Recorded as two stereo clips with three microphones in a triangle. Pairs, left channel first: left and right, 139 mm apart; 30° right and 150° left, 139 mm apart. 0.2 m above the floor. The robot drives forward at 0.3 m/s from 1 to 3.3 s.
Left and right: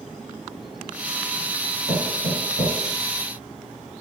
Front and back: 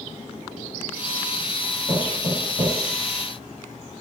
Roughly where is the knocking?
Left.